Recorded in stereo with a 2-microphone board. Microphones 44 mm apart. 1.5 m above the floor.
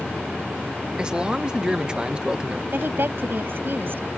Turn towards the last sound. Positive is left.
turn(degrees=-55)  # may be behind; listen again after turning